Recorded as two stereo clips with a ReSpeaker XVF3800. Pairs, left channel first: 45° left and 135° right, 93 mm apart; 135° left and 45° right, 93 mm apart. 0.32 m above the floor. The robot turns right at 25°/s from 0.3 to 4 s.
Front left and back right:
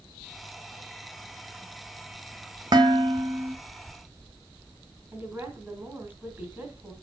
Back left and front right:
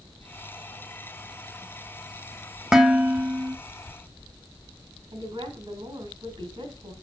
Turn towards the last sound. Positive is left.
turn(degrees=-70)